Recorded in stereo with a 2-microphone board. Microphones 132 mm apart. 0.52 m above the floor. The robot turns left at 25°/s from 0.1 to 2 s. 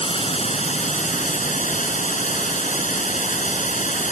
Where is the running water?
130° left; by 4.1 s 85° left.